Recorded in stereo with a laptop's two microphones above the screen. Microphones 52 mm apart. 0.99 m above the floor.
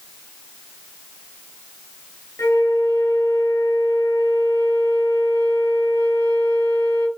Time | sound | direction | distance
2.4 | a flute | 90° left | 5.5 m